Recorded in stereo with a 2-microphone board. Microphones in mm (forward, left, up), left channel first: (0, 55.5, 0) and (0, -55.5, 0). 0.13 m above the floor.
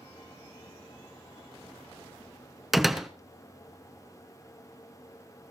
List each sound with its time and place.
2.7 s a door slam: centre (ahead or behind), 1.1 m